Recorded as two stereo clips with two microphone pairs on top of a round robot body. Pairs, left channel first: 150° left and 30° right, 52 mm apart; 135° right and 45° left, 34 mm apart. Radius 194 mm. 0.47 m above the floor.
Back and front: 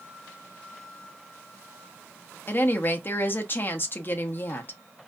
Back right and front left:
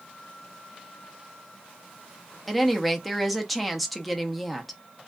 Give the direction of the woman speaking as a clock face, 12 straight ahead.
8 o'clock.